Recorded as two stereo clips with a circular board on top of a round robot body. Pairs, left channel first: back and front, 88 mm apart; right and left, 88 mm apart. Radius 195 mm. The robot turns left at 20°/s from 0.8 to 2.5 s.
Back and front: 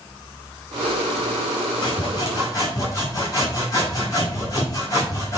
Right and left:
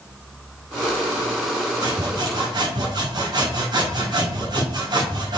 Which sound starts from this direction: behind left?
Sawing, at 1.8 s.